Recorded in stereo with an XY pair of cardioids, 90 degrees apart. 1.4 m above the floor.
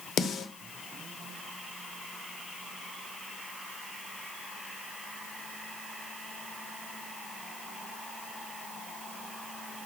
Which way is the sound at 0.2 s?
70° left.